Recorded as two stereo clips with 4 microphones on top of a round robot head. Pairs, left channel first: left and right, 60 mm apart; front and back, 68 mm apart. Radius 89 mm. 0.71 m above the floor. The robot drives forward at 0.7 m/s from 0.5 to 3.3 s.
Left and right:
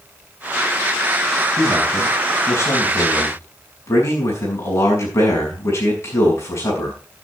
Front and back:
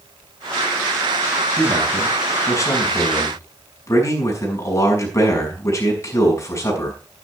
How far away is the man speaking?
About 7 m.